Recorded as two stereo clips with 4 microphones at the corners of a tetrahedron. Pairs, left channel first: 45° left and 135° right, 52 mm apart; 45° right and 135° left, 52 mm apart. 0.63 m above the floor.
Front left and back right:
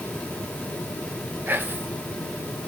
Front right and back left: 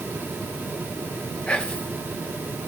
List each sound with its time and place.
1.5 s whispering: 105° right, 0.9 m